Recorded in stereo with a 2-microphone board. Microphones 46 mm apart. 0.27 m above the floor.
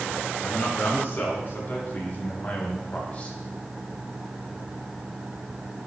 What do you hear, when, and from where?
0.4 s a man speaking: 45° left (ahead or behind), 3 m; by 3.4 s 25° left (ahead or behind), 1.3 m